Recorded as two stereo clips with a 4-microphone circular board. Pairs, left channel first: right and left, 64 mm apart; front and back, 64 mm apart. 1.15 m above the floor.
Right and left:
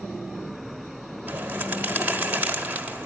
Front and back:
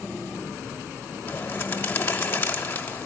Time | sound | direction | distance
1.3 | a bird | 35° left | 1.2 m